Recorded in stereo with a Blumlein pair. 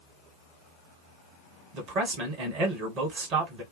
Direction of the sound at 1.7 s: 35° right.